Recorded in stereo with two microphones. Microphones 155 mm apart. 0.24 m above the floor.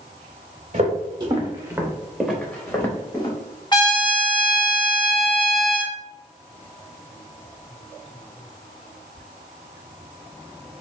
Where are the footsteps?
50° right (ahead or behind), 0.9 m; by 3.4 s 30° left (ahead or behind), 1.2 m.